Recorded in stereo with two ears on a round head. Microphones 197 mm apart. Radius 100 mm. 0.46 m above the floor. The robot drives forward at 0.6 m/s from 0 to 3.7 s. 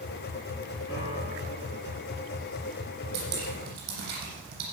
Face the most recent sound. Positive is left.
turn(degrees=-50)  # may be behind; listen again after turning